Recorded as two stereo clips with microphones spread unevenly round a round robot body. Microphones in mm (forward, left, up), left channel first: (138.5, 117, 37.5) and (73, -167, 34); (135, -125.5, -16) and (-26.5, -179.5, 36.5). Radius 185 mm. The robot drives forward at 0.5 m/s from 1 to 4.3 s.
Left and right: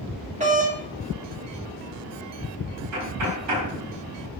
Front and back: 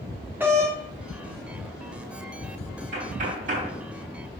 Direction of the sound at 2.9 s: 145° right.